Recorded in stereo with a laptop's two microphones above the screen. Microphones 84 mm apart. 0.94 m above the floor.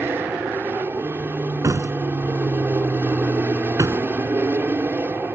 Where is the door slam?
40° right (ahead or behind).